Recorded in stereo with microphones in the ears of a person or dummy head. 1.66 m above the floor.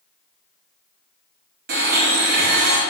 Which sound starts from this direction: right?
A blender, at 1.7 s.